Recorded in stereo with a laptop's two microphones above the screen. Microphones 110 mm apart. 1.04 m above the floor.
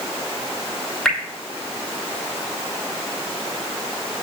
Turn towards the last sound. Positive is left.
turn(degrees=0)  # may be behind; listen again after turning